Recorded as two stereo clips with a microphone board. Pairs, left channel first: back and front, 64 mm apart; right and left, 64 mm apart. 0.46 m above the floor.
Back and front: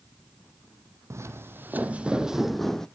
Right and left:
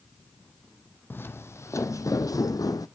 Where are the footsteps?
35° right, 1.0 m; by 2.9 s 100° right, 1.0 m.